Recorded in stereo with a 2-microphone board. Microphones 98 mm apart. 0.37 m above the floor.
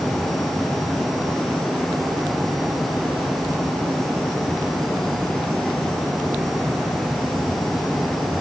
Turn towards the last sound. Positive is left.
No sound to turn to.